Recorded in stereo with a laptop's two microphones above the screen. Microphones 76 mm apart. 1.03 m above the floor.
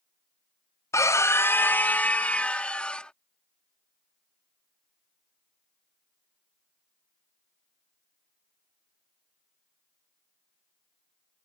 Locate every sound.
0.9 s a scream: 40° left (ahead or behind); by 3.1 s 15° left (ahead or behind)